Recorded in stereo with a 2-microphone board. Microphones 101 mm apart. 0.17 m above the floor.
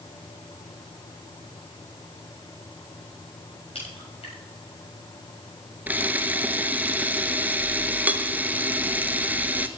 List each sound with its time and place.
3.8 s a crack: 75° left (ahead or behind), 7 m
5.9 s a camera shutter: 15° right (ahead or behind), 0.9 m